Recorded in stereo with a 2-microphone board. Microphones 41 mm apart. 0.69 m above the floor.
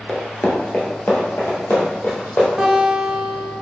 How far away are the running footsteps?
About 0.7 m.